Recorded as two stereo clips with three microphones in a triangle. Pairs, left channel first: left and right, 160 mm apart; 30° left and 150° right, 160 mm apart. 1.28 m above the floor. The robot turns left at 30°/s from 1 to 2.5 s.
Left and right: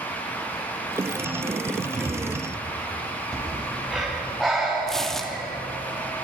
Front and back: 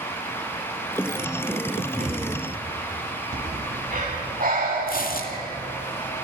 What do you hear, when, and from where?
2.0 s a thud: straight behind, 9.5 m; by 2.2 s 170° left, 9.5 m
3.3 s breathing: straight behind, 8.5 m
4.9 s tearing paper: 5° left, 2.5 m